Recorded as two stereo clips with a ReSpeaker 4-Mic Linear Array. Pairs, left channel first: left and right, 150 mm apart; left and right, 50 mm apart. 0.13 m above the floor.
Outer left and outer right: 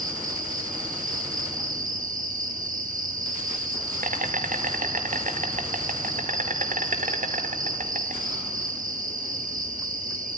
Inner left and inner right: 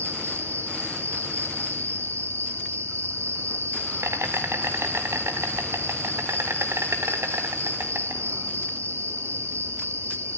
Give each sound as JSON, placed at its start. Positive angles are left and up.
{"t": 0.0, "sound": "an insect", "side_deg": -70, "distance_m": 2.0}